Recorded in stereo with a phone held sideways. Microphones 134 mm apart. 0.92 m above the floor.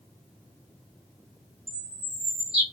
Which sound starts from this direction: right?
A bird, at 1.7 s.